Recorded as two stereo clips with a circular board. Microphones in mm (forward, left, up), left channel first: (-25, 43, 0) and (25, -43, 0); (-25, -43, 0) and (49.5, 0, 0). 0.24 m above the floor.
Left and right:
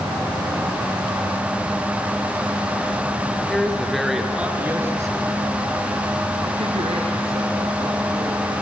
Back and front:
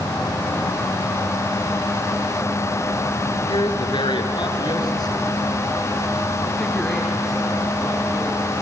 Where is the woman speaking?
160° right, 3.5 m; by 8.6 s 50° right, 6 m.